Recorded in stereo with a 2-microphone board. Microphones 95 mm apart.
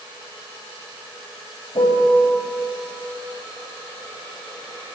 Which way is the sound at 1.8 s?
70° left (ahead or behind).